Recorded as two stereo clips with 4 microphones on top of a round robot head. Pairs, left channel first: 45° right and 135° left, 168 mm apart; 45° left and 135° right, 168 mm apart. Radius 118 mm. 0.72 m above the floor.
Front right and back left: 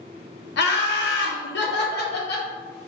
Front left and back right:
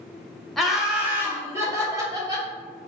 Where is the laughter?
45° right, 0.9 m; by 2.5 s 65° right, 1.8 m.